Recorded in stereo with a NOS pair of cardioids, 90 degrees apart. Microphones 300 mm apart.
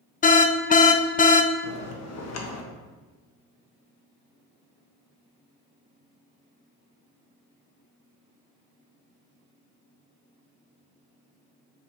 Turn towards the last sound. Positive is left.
turn(degrees=60)